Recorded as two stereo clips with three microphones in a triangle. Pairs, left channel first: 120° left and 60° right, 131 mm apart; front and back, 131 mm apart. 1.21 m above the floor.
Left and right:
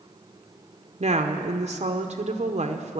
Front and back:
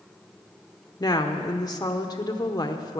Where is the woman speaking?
55° right, 0.8 m.